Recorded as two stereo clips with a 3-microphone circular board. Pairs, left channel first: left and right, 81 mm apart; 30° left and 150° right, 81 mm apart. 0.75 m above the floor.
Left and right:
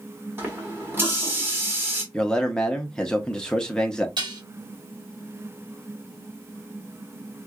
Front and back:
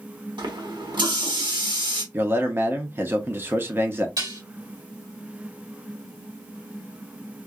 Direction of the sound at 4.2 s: 110° right.